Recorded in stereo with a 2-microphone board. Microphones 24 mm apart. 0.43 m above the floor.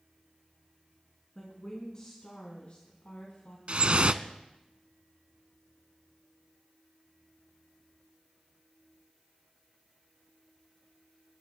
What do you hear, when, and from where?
1.4 s a woman speaking: 20° left (ahead or behind), 4 m; by 3.6 s 70° left (ahead or behind), 3 m
3.7 s dripping: 45° right (ahead or behind), 0.6 m